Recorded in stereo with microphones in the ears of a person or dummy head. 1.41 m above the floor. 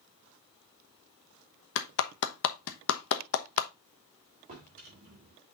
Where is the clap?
65° left (ahead or behind), 0.9 m.